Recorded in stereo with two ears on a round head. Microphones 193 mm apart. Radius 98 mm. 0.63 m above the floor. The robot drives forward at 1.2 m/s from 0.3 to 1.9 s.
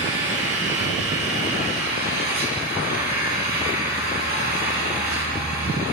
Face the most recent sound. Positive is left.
turn(degrees=-50)  # may be behind; listen again after turning